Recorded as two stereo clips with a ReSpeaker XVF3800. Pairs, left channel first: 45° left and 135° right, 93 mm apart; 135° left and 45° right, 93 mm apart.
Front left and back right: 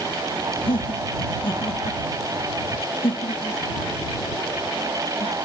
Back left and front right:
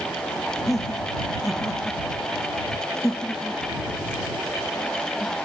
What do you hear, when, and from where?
0.7 s laughter: 45° left; by 5.3 s 50° left